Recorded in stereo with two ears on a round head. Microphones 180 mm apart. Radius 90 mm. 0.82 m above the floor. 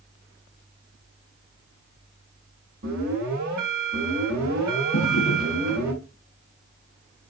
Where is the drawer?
75° left (ahead or behind), 3 m.